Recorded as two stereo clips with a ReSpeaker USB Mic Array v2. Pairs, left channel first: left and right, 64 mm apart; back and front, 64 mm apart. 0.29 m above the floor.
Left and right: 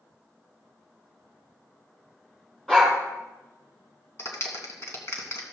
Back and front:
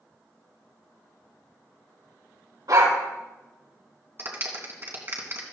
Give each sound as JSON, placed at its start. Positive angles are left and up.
{"t": 2.7, "sound": "a dog barking", "azimuth_deg": 5, "distance_m": 5.0}
{"t": 4.2, "sound": "a clap", "azimuth_deg": 50, "distance_m": 2.5}